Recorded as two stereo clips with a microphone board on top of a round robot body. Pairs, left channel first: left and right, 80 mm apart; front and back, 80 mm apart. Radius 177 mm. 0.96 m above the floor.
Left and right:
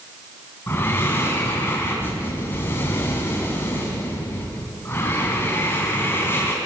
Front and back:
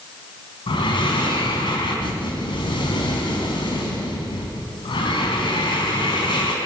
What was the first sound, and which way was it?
Breathing, 25° left.